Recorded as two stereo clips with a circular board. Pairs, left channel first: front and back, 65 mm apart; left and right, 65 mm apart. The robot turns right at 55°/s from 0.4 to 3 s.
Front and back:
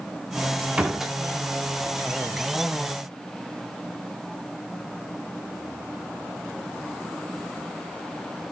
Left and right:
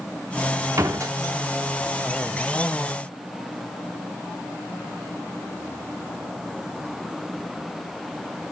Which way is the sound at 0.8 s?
110° right.